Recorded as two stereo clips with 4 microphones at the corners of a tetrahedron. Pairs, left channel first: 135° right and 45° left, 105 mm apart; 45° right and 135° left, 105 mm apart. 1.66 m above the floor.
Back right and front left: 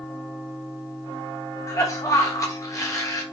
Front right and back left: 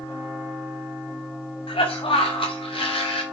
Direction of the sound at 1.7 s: 75° right.